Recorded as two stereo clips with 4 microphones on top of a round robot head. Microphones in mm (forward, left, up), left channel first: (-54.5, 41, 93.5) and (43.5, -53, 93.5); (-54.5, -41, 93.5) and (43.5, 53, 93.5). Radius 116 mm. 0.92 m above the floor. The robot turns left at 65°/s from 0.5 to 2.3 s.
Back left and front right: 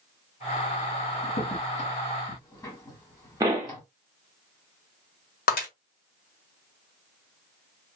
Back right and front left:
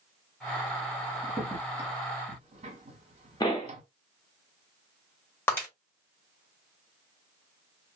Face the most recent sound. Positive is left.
turn(degrees=150)